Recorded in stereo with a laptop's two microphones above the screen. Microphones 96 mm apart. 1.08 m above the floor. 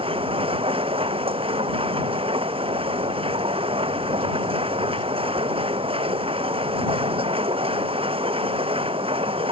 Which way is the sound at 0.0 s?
75° right (ahead or behind).